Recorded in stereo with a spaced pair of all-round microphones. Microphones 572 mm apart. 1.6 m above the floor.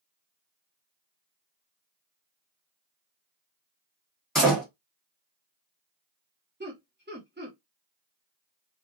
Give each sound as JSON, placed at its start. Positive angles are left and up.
{"t": 4.3, "sound": "a door slam", "side_deg": 0, "distance_m": 1.4}
{"t": 6.6, "sound": "laughter", "side_deg": -20, "distance_m": 0.9}